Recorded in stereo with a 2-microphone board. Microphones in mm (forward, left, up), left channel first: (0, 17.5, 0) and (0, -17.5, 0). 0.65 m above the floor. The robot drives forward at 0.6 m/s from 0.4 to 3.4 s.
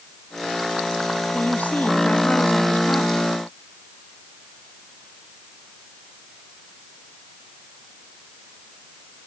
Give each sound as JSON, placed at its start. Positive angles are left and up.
{"t": 1.3, "sound": "a woman speaking", "side_deg": 50}